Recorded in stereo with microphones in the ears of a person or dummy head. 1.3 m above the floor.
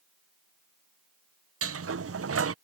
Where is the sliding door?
75° right (ahead or behind).